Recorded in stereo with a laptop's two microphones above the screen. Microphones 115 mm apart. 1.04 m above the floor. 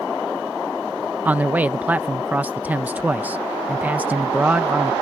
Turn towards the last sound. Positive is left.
turn(degrees=-15)  # may be behind; listen again after turning